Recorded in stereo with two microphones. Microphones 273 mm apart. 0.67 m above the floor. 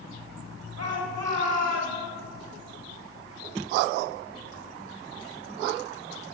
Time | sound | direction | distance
0.8 | a shout | 65° right (ahead or behind) | 3 m